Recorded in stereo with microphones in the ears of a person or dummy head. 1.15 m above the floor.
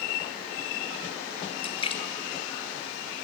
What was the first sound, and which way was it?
A splash, 30° left (ahead or behind).